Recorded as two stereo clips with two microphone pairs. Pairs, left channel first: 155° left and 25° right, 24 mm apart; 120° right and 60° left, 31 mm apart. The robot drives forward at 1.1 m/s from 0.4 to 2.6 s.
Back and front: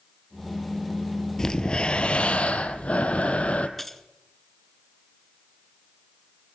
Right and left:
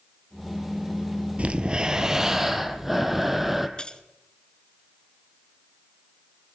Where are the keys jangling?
135° right, 1.2 m.